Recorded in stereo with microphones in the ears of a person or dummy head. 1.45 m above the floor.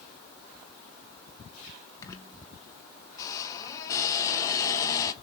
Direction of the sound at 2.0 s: 20° left (ahead or behind).